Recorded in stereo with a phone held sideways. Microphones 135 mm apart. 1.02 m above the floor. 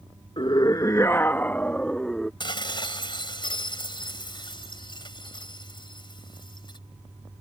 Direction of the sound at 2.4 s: 35° left (ahead or behind).